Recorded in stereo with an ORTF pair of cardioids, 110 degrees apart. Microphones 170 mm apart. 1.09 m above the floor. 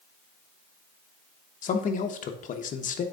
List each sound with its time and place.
1.6 s a man speaking: 50° left, 1.0 m